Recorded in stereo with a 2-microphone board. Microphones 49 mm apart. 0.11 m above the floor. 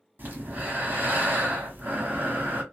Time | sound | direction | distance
0.2 | breathing | 40° right (ahead or behind) | 1.1 m